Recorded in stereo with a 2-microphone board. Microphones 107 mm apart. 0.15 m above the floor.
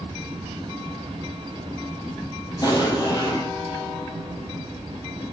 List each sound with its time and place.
2.6 s an explosion: 35° left (ahead or behind), 4 m